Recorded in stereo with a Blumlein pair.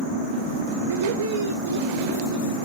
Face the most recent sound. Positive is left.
turn(degrees=-65)